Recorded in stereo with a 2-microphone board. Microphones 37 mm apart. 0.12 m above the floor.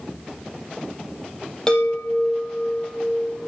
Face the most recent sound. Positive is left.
turn(degrees=20)  # may be behind; listen again after turning